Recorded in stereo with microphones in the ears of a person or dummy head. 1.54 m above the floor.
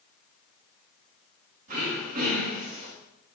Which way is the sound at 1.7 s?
35° right (ahead or behind).